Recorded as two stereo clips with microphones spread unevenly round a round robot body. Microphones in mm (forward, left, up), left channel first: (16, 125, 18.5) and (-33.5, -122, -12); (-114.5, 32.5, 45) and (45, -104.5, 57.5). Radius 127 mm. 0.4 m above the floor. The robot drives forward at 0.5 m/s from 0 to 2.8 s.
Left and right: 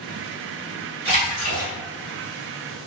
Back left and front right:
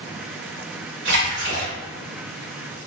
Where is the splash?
45° right, 1.8 m; by 1.7 s 55° right, 1.7 m.